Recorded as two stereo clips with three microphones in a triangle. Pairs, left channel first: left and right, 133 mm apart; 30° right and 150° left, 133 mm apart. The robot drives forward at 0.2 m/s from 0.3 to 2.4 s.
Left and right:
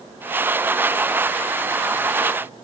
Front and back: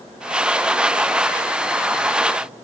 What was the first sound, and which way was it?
Only background noise.